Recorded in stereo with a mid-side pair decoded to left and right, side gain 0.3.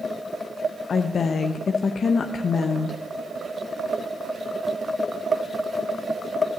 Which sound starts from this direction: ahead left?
A woman speaking, at 0.9 s.